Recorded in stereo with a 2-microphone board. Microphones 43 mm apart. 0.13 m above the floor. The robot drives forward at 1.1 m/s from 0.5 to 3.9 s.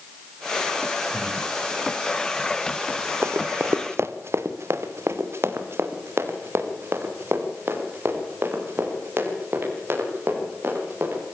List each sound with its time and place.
1.1 s breathing: 20° right (ahead or behind), 6 m
3.2 s running footsteps: 85° right, 1.0 m; by 11.2 s 55° right (ahead or behind), 9 m